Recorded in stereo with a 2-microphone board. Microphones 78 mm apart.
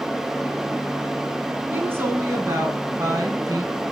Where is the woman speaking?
25° right (ahead or behind), 2.5 m; by 3.7 s 50° right (ahead or behind), 3 m.